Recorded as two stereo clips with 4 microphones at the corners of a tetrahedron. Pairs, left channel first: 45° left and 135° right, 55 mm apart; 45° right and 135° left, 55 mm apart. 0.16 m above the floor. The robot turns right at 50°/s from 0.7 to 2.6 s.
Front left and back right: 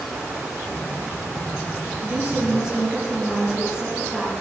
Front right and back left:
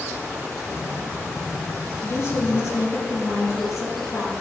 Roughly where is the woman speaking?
Right.